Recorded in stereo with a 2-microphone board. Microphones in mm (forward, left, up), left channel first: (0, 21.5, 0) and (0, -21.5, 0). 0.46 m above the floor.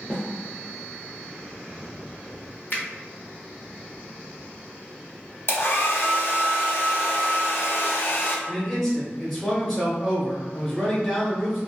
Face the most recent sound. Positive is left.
turn(degrees=5)  # may be behind; listen again after turning